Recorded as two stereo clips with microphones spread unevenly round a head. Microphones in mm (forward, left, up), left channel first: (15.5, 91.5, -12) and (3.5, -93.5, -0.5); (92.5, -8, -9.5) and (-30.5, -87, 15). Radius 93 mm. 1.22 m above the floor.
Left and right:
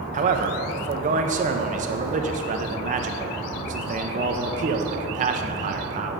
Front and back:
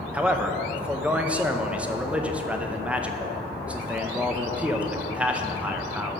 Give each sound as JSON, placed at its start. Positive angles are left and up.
{"t": 0.1, "sound": "a man speaking", "azimuth_deg": -60, "distance_m": 0.6}